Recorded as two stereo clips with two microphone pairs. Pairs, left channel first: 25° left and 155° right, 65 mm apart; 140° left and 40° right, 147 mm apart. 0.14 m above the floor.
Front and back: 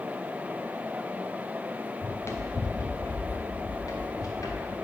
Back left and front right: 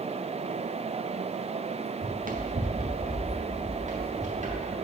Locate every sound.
2.0 s running footsteps: 25° right, 0.9 m; by 4.7 s straight ahead, 2.5 m